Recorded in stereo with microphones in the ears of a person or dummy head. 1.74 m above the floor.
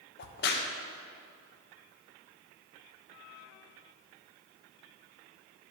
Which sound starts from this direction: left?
A crack, at 0.2 s.